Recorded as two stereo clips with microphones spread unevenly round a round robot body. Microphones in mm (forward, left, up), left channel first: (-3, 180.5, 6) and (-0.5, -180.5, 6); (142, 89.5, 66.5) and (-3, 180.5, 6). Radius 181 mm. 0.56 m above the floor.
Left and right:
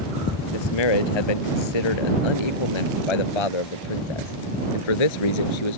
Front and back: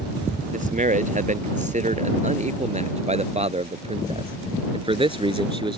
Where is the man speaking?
105° left; by 5.8 s 85° left.